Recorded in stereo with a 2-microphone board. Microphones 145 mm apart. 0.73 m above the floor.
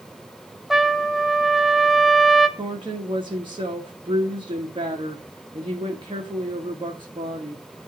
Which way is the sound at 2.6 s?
35° right (ahead or behind).